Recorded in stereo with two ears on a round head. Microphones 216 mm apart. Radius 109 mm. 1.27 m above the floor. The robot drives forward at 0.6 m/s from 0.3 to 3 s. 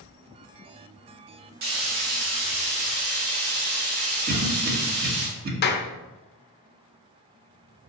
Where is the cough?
40° right (ahead or behind), 1.8 m.